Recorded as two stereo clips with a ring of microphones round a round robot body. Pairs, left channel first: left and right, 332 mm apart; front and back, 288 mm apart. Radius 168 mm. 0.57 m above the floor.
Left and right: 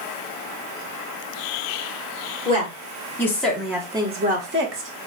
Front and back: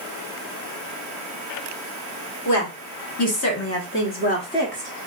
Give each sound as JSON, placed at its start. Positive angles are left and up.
{"t": 2.5, "sound": "a woman speaking", "azimuth_deg": 15, "distance_m": 1.5}